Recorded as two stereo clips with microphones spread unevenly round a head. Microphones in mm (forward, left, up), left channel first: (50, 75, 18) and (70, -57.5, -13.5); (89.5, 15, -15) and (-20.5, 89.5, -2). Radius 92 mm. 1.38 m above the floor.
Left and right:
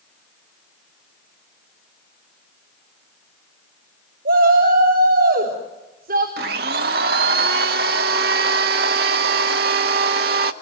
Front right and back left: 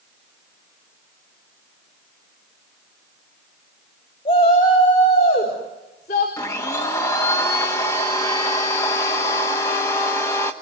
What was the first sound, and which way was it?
A shout, 90° right.